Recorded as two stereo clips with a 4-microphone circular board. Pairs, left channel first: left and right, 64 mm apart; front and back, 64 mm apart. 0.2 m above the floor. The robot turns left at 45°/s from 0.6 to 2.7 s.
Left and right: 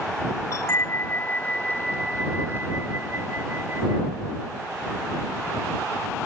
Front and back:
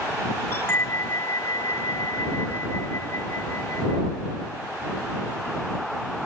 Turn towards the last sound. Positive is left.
turn(degrees=-40)